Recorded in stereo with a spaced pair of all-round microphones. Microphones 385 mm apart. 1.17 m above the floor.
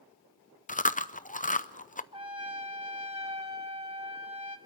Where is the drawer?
I don't hear a drawer.